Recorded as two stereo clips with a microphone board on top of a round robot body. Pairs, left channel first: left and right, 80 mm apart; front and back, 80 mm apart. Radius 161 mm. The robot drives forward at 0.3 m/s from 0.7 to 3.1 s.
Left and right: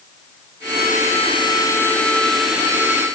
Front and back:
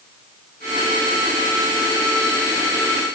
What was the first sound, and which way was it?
Only background noise.